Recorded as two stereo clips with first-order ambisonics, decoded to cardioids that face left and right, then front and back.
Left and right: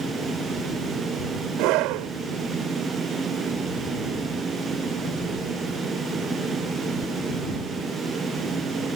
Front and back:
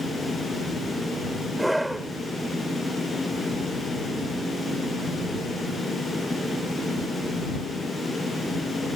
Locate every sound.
1.6 s a scream: 95° right